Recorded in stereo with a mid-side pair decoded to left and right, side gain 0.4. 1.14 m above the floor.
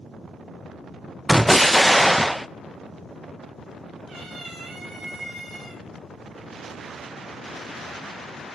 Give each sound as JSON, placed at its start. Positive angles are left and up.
{"t": 1.3, "sound": "an explosion", "azimuth_deg": -5, "distance_m": 0.6}
{"t": 4.1, "sound": "a cat meowing", "azimuth_deg": -55, "distance_m": 6.0}